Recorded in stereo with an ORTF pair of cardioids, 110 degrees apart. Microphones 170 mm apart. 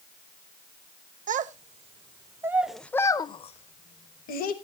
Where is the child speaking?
50° right, 1.2 m; by 4.5 s 65° left, 1.3 m.